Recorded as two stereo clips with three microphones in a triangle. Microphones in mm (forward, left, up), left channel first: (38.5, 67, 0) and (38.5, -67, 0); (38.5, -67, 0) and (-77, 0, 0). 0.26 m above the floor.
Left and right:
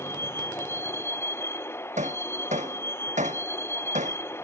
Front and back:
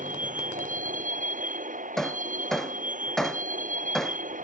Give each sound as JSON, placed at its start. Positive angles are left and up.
{"t": 0.0, "sound": "a vehicle", "azimuth_deg": 165}
{"t": 2.0, "sound": "hammering", "azimuth_deg": -115}